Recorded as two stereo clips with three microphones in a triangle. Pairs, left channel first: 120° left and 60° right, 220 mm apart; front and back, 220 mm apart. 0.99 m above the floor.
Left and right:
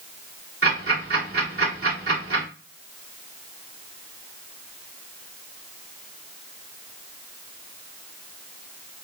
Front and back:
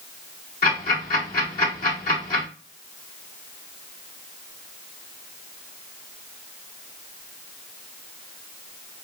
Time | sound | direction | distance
0.6 | ticking | 50° right | 2 m